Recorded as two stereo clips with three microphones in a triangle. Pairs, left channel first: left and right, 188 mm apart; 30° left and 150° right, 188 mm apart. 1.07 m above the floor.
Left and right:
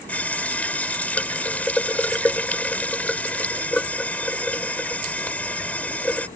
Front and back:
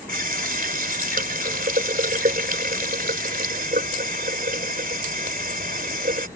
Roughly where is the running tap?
Behind.